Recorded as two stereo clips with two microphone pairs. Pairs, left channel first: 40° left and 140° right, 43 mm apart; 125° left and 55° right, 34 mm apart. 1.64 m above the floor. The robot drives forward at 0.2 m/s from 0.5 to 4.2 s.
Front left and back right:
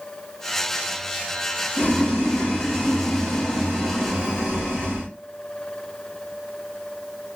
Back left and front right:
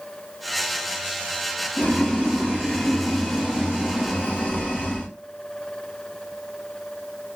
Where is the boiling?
105° left, 2.5 m; by 5.1 s 120° left, 2.5 m.